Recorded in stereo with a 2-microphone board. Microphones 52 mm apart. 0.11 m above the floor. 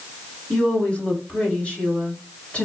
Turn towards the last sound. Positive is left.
turn(degrees=25)  # may be behind; listen again after turning